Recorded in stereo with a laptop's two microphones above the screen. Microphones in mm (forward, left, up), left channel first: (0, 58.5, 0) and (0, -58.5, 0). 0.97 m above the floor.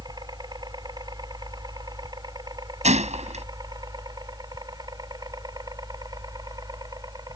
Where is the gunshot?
75° right (ahead or behind).